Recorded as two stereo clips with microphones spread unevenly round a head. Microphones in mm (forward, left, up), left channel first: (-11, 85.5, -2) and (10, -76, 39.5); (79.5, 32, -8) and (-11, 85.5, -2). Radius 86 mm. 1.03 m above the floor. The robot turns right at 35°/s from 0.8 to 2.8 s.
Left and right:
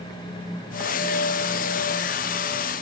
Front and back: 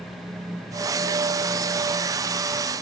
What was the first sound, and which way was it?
Only background noise.